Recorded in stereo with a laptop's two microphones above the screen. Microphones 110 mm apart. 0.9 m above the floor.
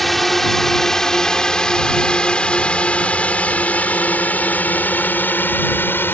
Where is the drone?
Centre (ahead or behind); by 6.2 s 20° left (ahead or behind).